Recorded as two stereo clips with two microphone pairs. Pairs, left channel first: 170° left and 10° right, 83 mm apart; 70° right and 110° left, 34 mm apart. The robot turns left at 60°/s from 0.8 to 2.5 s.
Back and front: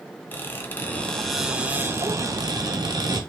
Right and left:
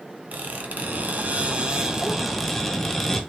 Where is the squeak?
110° left, 0.7 m; by 3.2 s 10° left, 0.7 m.